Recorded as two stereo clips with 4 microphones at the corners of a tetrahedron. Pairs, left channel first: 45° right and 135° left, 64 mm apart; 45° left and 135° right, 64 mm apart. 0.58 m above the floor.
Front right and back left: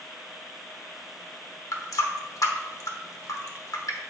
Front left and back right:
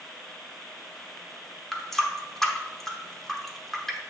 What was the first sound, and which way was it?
A running tap, 40° right.